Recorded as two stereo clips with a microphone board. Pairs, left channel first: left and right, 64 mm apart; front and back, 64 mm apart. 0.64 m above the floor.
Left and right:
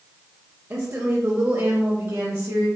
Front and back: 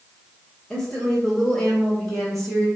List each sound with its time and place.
0.7 s a woman speaking: 75° right, 1.0 m; by 2.7 s 85° right, 1.8 m